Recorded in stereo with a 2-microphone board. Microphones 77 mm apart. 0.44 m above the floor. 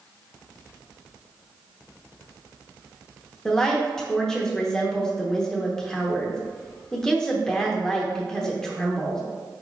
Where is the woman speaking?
10° left (ahead or behind), 0.8 m.